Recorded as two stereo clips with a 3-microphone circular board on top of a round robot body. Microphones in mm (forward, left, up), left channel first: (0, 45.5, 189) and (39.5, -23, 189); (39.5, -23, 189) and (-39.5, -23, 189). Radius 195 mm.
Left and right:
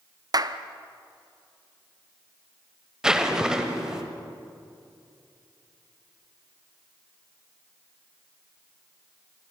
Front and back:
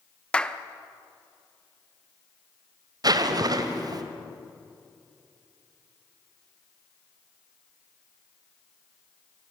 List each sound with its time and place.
0.3 s a clap: 75° right, 1.1 m
3.0 s a zipper: 145° right, 1.4 m